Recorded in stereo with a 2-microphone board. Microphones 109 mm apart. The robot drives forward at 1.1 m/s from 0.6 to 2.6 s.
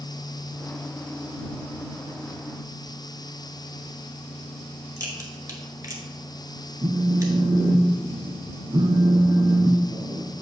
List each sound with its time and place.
5.0 s a crack: 30° right (ahead or behind), 1.3 m
6.8 s a phone buzzing: 40° right (ahead or behind), 0.8 m